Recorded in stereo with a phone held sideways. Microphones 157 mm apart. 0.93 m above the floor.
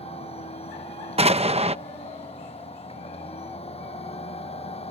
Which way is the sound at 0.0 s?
40° left (ahead or behind).